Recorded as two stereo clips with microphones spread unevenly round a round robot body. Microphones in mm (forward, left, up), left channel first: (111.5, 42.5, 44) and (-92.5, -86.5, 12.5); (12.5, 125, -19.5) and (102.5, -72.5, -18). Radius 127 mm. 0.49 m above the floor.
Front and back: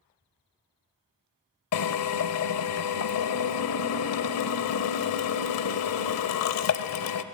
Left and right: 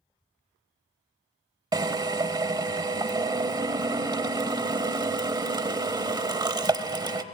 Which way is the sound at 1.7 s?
5° left.